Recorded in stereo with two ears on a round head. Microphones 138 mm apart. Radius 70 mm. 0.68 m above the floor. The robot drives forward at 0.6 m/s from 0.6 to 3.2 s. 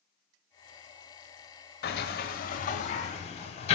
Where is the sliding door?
75° left (ahead or behind), 0.8 m; by 3.8 s 45° left (ahead or behind), 1.2 m.